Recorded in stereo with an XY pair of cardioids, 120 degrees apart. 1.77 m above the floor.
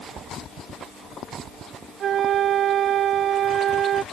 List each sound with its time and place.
2.0 s a flute: 55° right